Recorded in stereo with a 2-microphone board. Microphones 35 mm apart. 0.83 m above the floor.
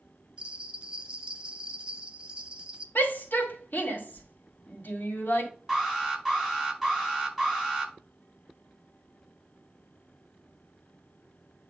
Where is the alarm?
5° right (ahead or behind), 5 m.